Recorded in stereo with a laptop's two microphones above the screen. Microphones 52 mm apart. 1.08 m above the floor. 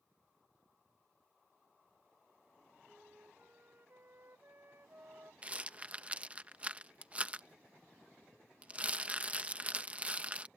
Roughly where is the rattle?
Right.